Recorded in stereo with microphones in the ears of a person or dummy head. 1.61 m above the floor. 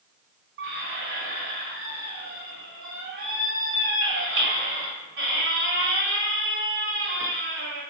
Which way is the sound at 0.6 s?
65° right (ahead or behind).